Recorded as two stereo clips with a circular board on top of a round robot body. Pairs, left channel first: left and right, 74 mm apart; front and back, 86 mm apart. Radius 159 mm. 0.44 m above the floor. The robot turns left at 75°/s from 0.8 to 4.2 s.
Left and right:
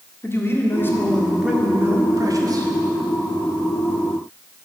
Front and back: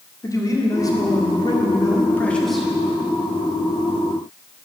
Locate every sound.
0.2 s a man speaking: 40° left, 1.8 m; by 2.7 s 100° right, 1.8 m